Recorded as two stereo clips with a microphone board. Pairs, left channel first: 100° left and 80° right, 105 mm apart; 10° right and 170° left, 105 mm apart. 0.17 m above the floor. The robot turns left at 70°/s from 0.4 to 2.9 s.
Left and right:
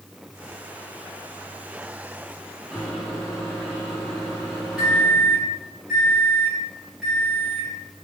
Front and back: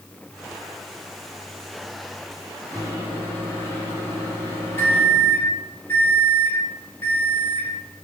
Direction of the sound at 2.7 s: 5° left.